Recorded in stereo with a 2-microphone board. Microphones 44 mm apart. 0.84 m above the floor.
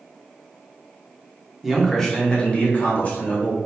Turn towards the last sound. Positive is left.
turn(degrees=45)  # may be behind; listen again after turning